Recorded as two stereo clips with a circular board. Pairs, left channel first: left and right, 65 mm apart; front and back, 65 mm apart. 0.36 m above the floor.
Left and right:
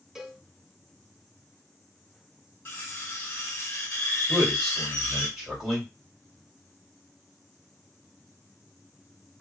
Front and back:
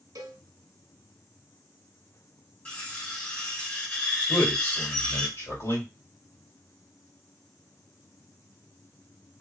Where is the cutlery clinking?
55° left, 0.9 m.